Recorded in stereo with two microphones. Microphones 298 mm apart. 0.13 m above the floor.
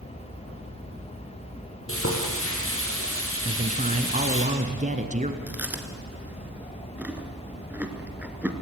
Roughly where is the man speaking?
Right.